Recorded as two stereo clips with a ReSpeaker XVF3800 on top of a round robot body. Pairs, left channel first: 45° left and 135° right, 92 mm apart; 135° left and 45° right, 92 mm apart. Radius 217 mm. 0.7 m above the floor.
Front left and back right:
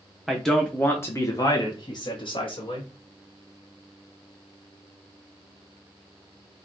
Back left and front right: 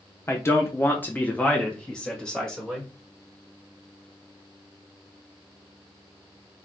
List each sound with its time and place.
0.3 s a man speaking: 140° left, 1.2 m; by 2.9 s 50° left, 2 m